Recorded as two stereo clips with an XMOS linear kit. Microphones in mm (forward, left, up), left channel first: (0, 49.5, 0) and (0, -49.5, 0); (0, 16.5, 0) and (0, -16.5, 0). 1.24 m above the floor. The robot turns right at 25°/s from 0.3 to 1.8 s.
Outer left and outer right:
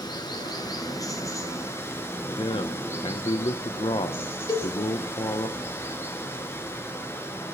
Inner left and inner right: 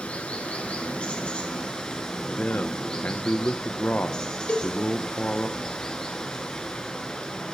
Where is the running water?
105° left, 1.6 m; by 7.5 s 145° left, 1.6 m.